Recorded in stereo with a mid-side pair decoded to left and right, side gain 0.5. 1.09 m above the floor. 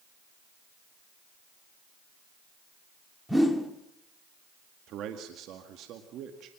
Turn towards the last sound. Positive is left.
turn(degrees=-70)